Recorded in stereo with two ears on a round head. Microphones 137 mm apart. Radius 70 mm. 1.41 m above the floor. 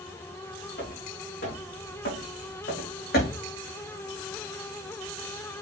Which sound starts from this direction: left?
Footsteps, at 0.8 s.